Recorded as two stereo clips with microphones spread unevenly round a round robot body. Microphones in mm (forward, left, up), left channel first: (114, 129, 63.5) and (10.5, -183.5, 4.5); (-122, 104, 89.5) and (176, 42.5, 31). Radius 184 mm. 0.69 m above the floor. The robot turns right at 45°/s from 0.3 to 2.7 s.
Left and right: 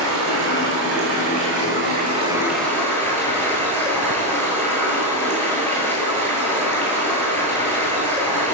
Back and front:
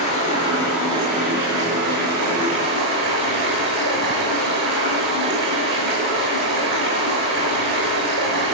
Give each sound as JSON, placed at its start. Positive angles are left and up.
{"t": 0.0, "sound": "running water", "azimuth_deg": -120, "distance_m": 8.5}